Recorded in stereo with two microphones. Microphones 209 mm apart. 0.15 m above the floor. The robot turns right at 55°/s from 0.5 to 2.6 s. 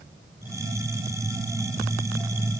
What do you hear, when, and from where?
Only background noise.